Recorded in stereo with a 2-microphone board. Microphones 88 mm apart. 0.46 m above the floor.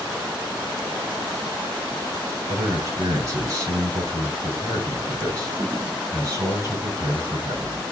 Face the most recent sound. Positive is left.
turn(degrees=-40)  # may be behind; listen again after turning